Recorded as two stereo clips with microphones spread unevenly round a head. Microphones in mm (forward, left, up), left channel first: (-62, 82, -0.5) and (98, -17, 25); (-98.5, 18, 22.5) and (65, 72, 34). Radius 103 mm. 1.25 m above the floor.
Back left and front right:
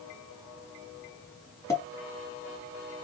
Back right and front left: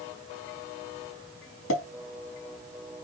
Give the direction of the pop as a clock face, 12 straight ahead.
4 o'clock.